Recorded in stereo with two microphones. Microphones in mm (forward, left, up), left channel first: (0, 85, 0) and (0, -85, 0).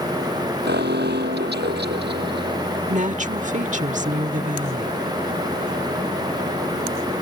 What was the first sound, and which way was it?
An alarm, 80° right.